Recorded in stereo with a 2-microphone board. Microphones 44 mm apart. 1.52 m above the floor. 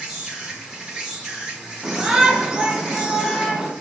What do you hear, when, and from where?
0.0 s an insect: 10° right (ahead or behind), 0.9 m
1.8 s a shout: 10° right (ahead or behind), 0.9 m